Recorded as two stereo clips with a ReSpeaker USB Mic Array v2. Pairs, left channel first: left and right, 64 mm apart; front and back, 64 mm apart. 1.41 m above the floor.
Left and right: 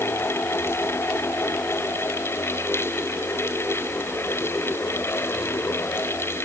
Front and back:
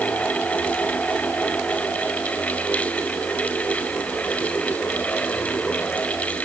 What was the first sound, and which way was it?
Only background noise.